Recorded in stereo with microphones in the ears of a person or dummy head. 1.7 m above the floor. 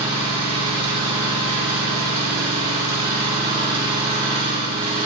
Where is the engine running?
35° right (ahead or behind), 4.5 m.